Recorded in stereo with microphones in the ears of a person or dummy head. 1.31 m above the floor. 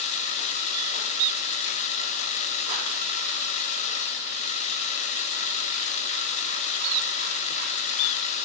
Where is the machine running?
40° left (ahead or behind), 1.2 m.